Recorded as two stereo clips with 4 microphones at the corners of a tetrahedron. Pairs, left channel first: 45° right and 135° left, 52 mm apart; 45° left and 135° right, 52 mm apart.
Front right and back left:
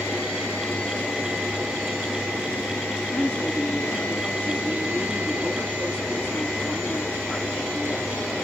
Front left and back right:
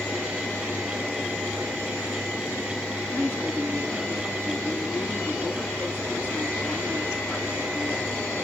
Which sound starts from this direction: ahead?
A woman speaking, at 3.1 s.